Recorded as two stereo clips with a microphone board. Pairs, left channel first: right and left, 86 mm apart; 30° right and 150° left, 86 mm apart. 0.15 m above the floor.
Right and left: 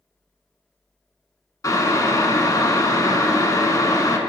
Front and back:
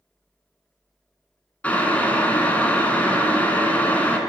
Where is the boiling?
95° right, 0.6 m.